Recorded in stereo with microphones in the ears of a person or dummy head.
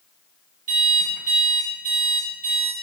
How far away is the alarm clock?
About 4.5 m.